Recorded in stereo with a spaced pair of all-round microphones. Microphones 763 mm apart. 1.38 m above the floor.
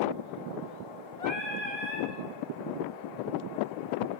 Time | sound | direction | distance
1.2 | singing | 50° left (ahead or behind) | 2.5 m